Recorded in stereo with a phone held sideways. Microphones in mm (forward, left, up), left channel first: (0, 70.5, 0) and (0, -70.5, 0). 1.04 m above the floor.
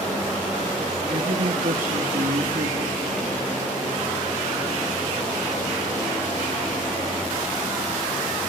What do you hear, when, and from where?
1.1 s a woman speaking: 80° right, 1.8 m